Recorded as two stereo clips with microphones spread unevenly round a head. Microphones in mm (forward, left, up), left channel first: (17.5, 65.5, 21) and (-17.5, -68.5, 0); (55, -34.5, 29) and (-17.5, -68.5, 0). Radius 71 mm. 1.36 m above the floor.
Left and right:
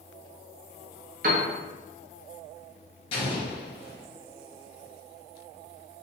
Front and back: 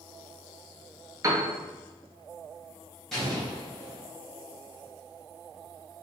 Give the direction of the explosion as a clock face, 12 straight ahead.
9 o'clock.